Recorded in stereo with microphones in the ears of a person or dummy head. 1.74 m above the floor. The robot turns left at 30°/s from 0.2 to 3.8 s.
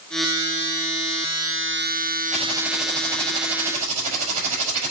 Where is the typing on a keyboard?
Straight ahead, 5 m; by 4.9 s 45° right, 5 m.